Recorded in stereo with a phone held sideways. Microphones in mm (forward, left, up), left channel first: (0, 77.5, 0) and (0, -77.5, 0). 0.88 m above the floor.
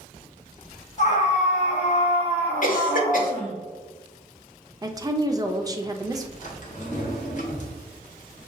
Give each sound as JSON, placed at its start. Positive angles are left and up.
{"t": 1.0, "sound": "a scream", "side_deg": 50, "distance_m": 1.4}
{"t": 2.6, "sound": "a cough", "side_deg": 60, "distance_m": 1.6}
{"t": 4.8, "sound": "a woman speaking", "side_deg": -25, "distance_m": 0.6}
{"t": 6.4, "sound": "a drawer", "side_deg": 55, "distance_m": 1.2}